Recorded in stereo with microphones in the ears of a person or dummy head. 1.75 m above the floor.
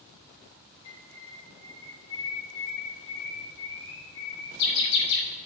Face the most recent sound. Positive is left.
turn(degrees=65)  # may be behind; listen again after turning